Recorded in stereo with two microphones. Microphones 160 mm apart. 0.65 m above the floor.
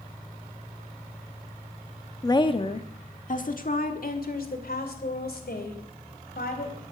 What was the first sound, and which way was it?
A woman speaking, 20° left (ahead or behind).